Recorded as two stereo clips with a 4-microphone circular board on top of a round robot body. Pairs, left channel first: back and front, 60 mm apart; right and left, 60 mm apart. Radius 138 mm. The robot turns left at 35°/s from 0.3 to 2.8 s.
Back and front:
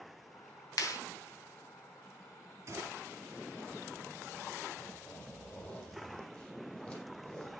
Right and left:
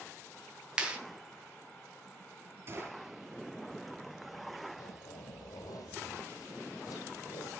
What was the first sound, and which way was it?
A clap, 165° left.